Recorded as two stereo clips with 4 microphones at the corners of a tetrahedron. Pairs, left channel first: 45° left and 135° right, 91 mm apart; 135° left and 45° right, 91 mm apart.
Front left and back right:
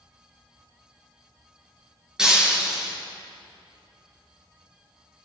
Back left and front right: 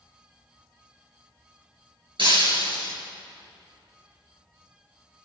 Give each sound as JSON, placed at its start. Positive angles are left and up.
{"t": 2.2, "sound": "breaking glass", "azimuth_deg": -50, "distance_m": 3.0}